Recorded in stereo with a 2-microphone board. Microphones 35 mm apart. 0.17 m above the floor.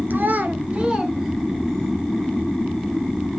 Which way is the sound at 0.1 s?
65° right (ahead or behind).